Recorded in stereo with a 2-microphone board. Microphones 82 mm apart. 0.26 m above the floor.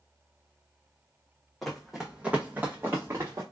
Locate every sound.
1.6 s running footsteps: 5° left (ahead or behind), 1.0 m; by 3.4 s 35° right (ahead or behind), 1.5 m